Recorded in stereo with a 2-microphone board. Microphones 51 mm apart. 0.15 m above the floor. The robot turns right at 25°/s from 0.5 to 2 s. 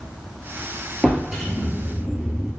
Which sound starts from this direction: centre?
A drawer, at 1.0 s.